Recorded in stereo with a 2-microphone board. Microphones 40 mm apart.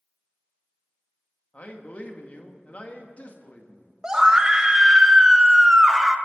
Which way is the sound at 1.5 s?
40° left (ahead or behind).